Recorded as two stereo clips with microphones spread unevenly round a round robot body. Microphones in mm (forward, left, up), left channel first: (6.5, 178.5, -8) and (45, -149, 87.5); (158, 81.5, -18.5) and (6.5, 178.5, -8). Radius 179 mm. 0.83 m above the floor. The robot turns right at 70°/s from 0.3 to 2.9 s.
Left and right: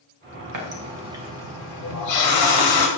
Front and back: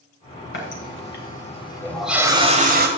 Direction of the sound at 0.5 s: 45° right.